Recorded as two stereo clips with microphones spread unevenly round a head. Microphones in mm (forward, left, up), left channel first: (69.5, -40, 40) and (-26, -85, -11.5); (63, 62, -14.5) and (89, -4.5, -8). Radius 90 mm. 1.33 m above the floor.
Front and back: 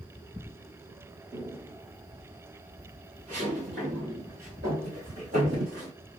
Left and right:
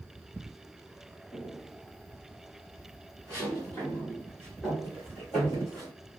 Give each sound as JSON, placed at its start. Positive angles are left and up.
{"t": 1.3, "sound": "footsteps", "azimuth_deg": 125, "distance_m": 1.4}